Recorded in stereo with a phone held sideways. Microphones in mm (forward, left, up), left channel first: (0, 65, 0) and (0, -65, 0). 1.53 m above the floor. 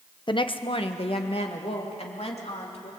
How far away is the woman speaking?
About 0.9 m.